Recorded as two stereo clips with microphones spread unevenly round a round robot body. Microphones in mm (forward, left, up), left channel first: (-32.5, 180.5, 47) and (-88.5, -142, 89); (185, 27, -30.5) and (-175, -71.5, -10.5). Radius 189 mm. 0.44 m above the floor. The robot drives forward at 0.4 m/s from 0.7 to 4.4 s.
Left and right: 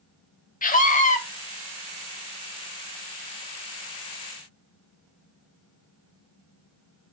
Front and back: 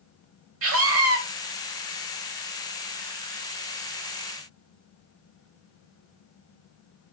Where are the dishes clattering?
No dishes clattering in this recording.